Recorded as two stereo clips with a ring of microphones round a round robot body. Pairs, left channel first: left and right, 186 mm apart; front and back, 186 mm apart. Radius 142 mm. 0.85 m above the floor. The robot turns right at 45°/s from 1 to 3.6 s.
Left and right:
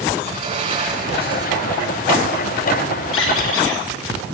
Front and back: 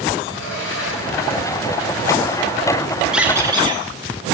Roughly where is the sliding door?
Ahead right.